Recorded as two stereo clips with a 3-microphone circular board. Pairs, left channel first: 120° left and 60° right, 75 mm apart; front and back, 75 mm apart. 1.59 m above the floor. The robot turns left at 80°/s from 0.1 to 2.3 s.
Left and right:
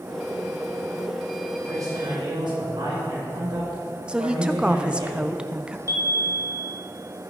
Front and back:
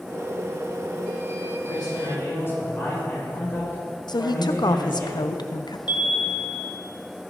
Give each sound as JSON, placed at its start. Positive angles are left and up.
{"t": 1.7, "sound": "a man speaking", "azimuth_deg": -5, "distance_m": 5.5}
{"t": 4.1, "sound": "a woman speaking", "azimuth_deg": 20, "distance_m": 0.8}
{"t": 5.9, "sound": "a chime", "azimuth_deg": -10, "distance_m": 1.8}